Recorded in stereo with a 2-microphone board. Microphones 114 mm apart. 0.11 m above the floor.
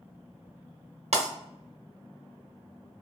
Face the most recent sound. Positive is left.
turn(degrees=-75)  # may be behind; listen again after turning